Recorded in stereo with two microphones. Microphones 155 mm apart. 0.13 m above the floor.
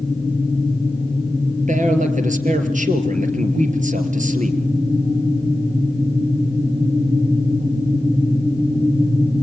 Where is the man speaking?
55° right (ahead or behind), 3 m.